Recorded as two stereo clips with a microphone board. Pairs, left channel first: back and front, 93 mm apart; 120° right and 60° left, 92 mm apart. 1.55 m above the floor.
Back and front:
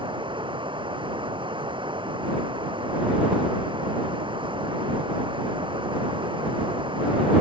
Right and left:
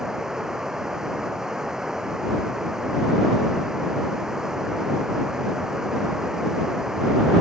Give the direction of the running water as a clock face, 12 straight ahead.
1 o'clock.